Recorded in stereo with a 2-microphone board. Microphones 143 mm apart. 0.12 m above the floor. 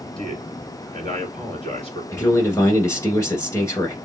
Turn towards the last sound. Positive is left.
turn(degrees=20)  # may be behind; listen again after turning